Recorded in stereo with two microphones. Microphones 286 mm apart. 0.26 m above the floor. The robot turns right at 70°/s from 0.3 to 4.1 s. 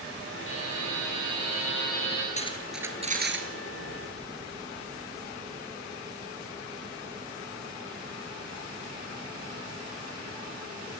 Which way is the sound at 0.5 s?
45° left.